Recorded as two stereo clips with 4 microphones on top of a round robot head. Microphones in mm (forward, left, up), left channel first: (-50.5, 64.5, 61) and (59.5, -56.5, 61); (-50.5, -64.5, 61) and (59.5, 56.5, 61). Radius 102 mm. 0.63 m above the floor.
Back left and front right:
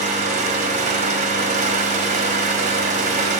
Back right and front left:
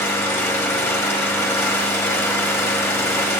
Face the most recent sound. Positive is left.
turn(degrees=-60)